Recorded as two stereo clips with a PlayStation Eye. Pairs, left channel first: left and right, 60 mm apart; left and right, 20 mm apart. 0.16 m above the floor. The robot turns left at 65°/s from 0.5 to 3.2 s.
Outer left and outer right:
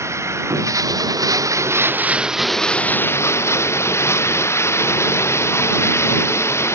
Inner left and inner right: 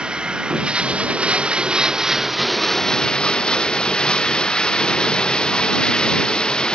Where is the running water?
50° right; by 6.8 s 130° left.